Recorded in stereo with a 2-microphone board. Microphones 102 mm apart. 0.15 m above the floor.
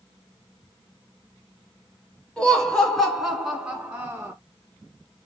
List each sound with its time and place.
2.4 s laughter: 5° left (ahead or behind), 1.6 m; by 4.3 s 20° right (ahead or behind), 1.2 m